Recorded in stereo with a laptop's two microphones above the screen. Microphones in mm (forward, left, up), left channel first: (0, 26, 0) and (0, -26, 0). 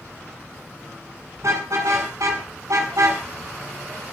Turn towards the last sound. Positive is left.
turn(degrees=-90)